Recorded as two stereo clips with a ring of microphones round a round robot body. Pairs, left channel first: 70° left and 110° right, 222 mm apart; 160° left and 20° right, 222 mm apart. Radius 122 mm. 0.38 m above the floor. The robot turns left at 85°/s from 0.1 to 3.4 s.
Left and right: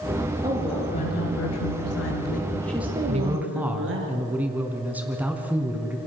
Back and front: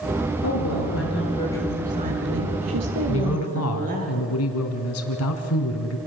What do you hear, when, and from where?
0.4 s a woman speaking: 175° left, 7 m; by 4.1 s 80° right, 7 m
3.1 s a man speaking: 170° right, 4 m; by 6.0 s 165° left, 4 m